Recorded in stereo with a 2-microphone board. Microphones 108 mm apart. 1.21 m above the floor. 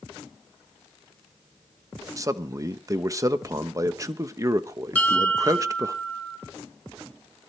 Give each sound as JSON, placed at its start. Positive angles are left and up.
{"t": 2.2, "sound": "a man speaking", "side_deg": -30, "distance_m": 1.0}
{"t": 5.0, "sound": "a bell", "side_deg": 15, "distance_m": 3.0}